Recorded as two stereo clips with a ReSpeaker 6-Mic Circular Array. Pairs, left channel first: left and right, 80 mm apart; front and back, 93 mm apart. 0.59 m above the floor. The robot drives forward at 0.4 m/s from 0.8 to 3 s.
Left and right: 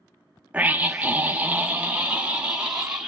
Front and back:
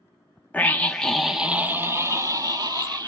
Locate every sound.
0.5 s a scream: 50° right, 0.6 m; by 3.1 s 165° right, 0.9 m